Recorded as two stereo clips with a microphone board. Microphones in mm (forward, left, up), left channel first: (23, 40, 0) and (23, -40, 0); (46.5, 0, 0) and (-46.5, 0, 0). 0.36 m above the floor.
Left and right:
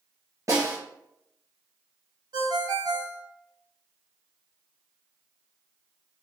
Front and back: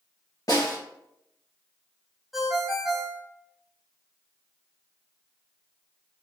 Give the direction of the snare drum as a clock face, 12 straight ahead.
1 o'clock.